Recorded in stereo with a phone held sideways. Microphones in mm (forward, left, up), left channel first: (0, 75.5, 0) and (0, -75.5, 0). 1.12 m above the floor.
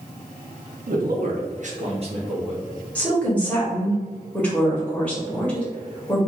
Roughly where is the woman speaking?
Centre.